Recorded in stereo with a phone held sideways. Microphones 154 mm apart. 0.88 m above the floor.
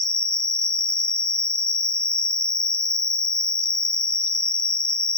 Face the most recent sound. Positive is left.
turn(degrees=-50)  # may be behind; listen again after turning